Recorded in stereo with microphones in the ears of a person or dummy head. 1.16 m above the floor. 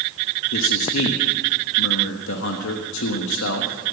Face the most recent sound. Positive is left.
turn(degrees=75)  # may be behind; listen again after turning